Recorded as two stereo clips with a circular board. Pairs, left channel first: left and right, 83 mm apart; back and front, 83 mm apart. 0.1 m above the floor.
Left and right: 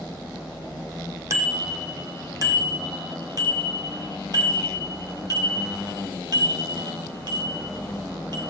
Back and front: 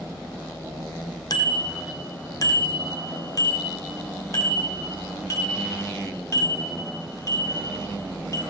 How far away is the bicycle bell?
About 3 m.